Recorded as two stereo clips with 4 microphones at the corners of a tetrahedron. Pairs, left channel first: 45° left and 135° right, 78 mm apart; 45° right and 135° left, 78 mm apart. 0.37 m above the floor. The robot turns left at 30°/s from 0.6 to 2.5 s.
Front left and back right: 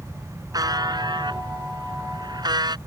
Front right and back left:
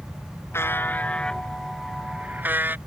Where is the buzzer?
100° right; by 2.8 s 160° right.